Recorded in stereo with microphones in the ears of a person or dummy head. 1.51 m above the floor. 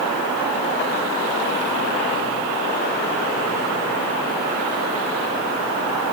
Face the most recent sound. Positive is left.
No sound to turn to.